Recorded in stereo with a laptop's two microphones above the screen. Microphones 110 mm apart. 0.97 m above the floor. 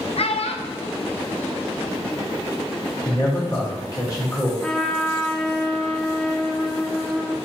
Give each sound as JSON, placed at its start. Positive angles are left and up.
{"t": 0.2, "sound": "a child speaking", "side_deg": 65, "distance_m": 0.5}
{"t": 3.0, "sound": "a man speaking", "side_deg": 30, "distance_m": 1.3}
{"t": 4.6, "sound": "a trumpet", "side_deg": 5, "distance_m": 0.5}